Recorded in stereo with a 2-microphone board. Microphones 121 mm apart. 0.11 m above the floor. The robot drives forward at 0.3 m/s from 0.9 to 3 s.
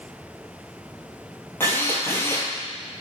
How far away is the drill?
About 1.5 m.